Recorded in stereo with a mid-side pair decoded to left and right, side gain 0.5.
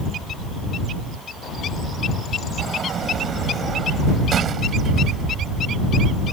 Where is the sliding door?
50° right.